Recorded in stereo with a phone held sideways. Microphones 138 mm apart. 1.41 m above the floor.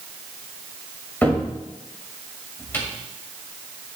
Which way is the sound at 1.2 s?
15° left (ahead or behind).